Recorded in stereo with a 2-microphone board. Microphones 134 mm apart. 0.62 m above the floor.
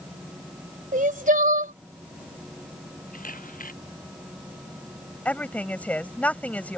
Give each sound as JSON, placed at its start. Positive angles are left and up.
{"t": 0.9, "sound": "crying", "side_deg": -75}
{"t": 3.1, "sound": "a camera shutter", "side_deg": 80}
{"t": 5.2, "sound": "a woman speaking", "side_deg": 10}